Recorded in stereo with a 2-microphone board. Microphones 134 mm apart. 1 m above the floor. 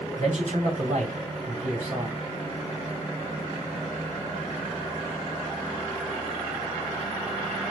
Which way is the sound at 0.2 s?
60° right (ahead or behind).